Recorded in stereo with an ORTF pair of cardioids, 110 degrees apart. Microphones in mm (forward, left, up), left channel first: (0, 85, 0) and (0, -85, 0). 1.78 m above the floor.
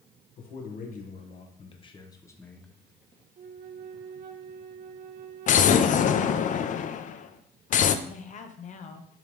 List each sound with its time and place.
0.4 s a man speaking: 60° left, 1.7 m; by 2.7 s 5° left, 1.2 m
3.4 s a flute: 55° right, 0.7 m
5.5 s an explosion: 50° left, 0.5 m
8.1 s a woman speaking: 45° left, 1.0 m